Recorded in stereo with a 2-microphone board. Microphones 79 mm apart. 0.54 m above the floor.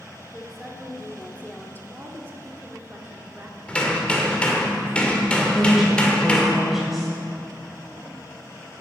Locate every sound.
0.3 s a woman speaking: 5° right (ahead or behind), 1.3 m; by 1.8 s 25° left (ahead or behind), 1.1 m
1.9 s a woman speaking: 25° right (ahead or behind), 1.6 m
3.7 s hammering: 15° left (ahead or behind), 1.7 m
5.5 s a woman speaking: 5° right (ahead or behind), 2.5 m